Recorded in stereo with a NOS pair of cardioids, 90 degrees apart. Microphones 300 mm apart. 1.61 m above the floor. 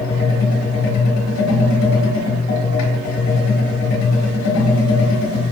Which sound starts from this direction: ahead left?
A machine running, at 0.0 s.